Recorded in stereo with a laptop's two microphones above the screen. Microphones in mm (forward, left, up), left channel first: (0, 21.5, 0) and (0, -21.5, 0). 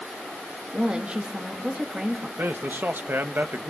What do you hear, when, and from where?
0.7 s a woman speaking: 30° right (ahead or behind), 1.6 m
2.4 s a man speaking: 55° right (ahead or behind), 1.1 m